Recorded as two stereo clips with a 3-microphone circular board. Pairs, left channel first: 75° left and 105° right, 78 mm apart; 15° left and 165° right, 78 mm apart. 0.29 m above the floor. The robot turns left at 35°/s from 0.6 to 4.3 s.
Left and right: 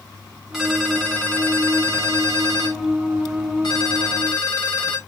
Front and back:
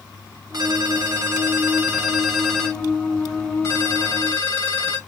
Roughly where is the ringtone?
Behind.